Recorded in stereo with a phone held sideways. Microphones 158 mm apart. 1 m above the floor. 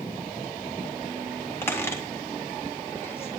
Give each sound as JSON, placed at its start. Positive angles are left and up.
{"t": 1.6, "sound": "a squeak", "side_deg": 15, "distance_m": 3.0}